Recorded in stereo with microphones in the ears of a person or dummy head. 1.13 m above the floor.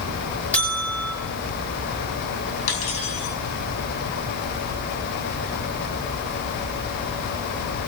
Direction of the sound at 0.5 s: 10° left (ahead or behind).